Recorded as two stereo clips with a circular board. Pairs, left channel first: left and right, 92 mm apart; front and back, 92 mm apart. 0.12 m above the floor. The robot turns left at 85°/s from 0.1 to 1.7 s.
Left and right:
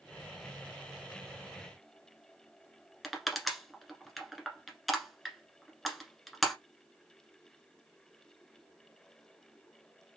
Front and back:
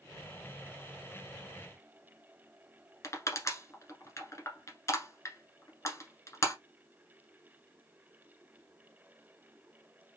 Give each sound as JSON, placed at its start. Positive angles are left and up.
{"t": 3.0, "sound": "crushing", "azimuth_deg": 0, "distance_m": 1.3}